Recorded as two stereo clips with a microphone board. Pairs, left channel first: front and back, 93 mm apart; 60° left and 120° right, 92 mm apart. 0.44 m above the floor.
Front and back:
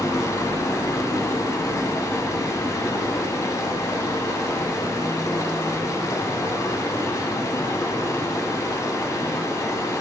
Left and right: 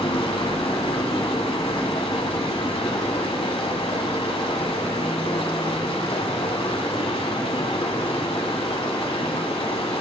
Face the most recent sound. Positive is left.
turn(degrees=55)